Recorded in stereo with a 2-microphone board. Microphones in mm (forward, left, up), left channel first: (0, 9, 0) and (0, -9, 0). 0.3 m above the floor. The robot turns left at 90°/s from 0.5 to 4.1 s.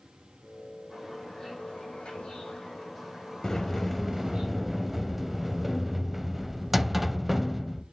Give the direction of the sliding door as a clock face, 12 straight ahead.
11 o'clock.